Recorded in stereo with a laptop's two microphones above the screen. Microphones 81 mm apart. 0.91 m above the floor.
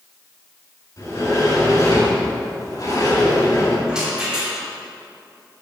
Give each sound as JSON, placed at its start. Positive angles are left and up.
{"t": 1.0, "sound": "a sliding door", "side_deg": 45, "distance_m": 3.5}
{"t": 3.9, "sound": "a rattle", "side_deg": -10, "distance_m": 2.0}